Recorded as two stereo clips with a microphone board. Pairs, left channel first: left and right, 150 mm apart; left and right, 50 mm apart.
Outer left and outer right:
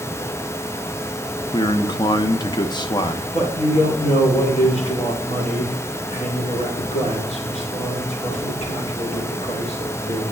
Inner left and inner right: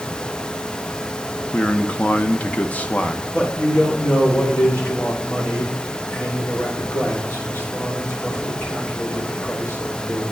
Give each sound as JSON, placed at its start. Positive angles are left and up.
{"t": 1.5, "sound": "a man speaking", "side_deg": 30, "distance_m": 0.6}
{"t": 3.3, "sound": "a man speaking", "side_deg": 50, "distance_m": 3.5}